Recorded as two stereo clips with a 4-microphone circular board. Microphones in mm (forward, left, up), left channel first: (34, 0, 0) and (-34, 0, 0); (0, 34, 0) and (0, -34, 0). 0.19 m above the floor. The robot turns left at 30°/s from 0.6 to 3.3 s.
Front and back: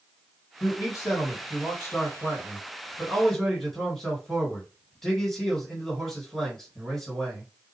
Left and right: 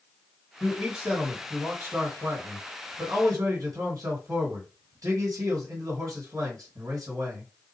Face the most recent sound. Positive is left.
turn(degrees=-85)